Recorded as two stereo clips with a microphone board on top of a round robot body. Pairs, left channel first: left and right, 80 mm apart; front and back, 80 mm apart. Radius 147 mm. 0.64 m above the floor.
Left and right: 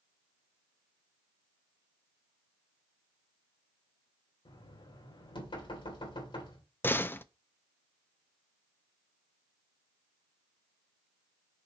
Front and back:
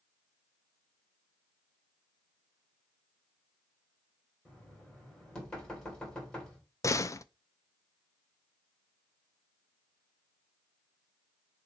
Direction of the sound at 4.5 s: 80° left.